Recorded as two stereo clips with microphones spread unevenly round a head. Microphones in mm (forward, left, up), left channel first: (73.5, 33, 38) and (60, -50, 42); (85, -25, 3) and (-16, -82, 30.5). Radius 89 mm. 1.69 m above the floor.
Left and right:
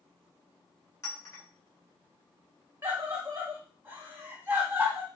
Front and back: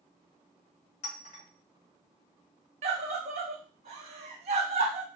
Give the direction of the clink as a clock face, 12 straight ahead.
10 o'clock.